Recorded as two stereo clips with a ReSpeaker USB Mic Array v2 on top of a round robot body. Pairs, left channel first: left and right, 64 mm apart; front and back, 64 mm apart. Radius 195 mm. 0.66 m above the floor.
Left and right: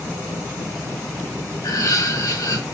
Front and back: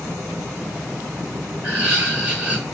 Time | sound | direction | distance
1.6 | laughter | 105° left | 3 m